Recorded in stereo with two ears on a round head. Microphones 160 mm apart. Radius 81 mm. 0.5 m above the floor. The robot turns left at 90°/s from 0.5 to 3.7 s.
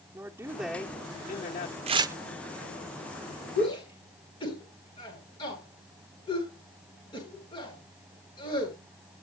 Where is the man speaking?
160° right, 1.0 m; by 1.8 s 90° left, 1.0 m.